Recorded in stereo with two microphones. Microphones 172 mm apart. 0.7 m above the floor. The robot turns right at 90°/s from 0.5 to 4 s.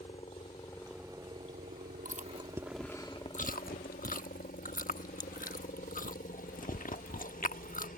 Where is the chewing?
55° right (ahead or behind); by 7.9 s 55° left (ahead or behind).